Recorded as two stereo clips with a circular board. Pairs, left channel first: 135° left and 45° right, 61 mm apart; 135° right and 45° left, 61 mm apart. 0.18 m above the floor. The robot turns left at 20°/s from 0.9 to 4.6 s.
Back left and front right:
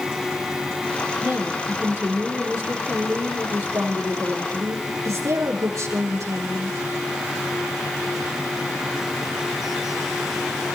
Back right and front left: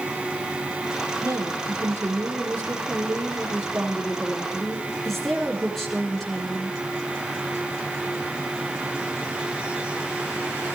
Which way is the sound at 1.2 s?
20° left.